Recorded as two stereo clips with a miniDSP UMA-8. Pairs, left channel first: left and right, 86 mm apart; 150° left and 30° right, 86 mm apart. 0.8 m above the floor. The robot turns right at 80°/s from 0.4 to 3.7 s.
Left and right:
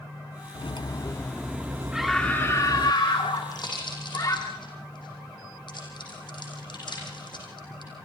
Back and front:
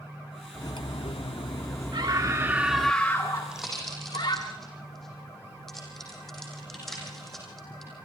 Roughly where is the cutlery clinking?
Left.